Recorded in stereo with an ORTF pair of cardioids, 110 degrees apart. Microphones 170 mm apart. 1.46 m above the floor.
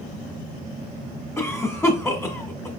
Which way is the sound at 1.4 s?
15° left.